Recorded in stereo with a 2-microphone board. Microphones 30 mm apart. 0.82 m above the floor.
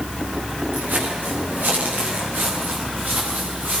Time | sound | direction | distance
0.7 | footsteps | 85° right | 8.5 m